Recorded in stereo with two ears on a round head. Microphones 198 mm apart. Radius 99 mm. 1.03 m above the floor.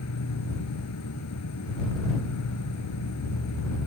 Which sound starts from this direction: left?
An insect, at 0.0 s.